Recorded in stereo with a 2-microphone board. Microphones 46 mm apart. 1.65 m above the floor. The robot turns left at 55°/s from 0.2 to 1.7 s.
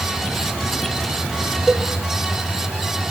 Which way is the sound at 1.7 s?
15° right (ahead or behind).